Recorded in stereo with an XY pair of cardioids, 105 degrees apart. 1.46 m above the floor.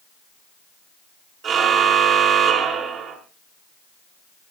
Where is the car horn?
60° right, 8.5 m.